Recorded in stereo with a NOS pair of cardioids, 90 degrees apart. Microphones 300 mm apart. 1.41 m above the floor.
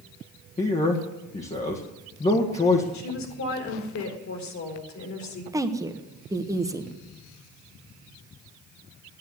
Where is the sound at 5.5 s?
10° right, 1.4 m.